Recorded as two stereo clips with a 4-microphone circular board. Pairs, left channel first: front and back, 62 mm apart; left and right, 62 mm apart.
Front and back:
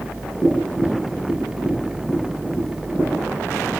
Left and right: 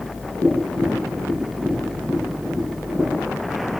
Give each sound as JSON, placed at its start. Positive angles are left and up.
{"t": 0.4, "sound": "tapping", "azimuth_deg": -75, "distance_m": 6.5}